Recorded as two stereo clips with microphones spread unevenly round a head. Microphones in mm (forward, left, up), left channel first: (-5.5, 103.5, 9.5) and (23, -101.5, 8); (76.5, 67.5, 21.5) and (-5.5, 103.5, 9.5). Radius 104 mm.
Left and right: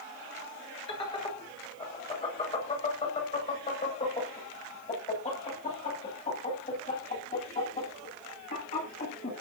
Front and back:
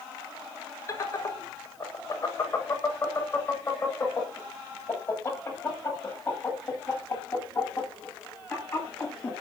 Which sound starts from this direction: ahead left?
Laughter, at 0.9 s.